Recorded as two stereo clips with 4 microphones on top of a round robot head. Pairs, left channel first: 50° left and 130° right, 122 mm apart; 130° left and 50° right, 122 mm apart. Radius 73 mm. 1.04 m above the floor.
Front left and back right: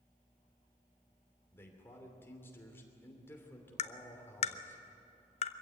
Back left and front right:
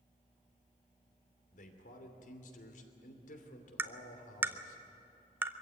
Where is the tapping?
25° left, 0.9 m.